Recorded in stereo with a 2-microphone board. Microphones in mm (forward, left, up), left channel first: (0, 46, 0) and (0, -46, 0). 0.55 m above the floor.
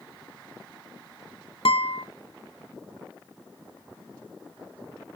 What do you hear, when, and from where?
1.6 s a guitar: 80° left, 0.6 m